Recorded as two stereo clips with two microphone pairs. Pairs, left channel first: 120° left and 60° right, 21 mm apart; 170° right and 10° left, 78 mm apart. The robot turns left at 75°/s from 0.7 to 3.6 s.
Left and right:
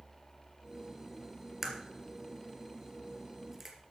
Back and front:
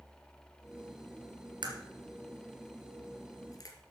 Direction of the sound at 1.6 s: 15° left.